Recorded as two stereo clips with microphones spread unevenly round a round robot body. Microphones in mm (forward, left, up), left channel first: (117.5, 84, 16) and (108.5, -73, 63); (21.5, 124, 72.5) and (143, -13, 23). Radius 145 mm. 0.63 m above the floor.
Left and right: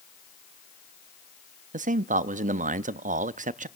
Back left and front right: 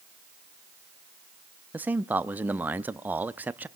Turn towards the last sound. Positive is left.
turn(degrees=-85)